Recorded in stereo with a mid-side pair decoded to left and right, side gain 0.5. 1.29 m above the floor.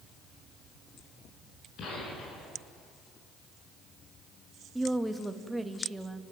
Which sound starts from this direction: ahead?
A woman speaking, at 4.8 s.